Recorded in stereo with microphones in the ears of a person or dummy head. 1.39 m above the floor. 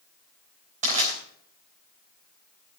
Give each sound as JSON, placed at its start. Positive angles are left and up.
{"t": 0.8, "sound": "crushing", "side_deg": -35, "distance_m": 4.5}